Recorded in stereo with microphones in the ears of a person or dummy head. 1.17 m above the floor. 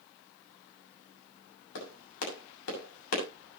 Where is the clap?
90° left, 7 m.